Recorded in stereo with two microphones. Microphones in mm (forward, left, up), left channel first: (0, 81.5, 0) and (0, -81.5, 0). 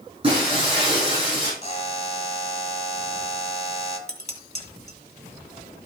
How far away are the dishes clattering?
About 1.7 m.